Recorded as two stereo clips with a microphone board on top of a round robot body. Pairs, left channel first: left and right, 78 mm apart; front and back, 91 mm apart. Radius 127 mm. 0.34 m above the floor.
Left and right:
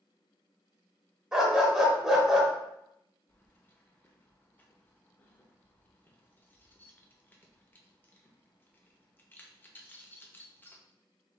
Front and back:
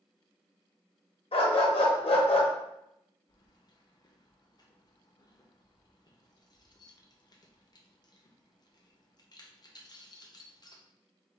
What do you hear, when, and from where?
1.3 s a dog barking: 5° right, 1.2 m
3.3 s keys jangling: 30° left, 0.9 m